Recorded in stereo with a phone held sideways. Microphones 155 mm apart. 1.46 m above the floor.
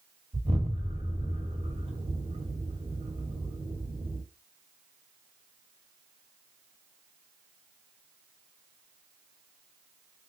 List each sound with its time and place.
0.3 s an explosion: 40° right (ahead or behind), 1.3 m